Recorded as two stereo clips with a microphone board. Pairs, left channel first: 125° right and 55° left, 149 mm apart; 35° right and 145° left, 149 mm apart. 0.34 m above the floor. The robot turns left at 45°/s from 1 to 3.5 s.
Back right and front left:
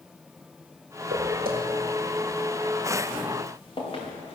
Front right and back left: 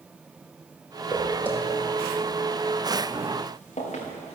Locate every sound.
1.1 s footsteps: 65° left, 4 m; by 4.4 s 75° right, 5.5 m